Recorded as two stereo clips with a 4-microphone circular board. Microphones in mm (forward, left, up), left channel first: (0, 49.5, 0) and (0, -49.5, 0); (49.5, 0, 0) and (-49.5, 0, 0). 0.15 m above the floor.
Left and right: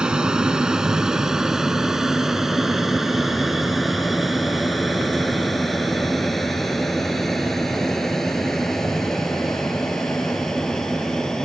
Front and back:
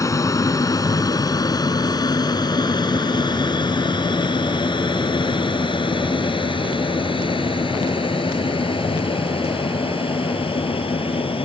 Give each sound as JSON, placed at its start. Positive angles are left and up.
{"t": 0.0, "sound": "an aircraft", "azimuth_deg": -15}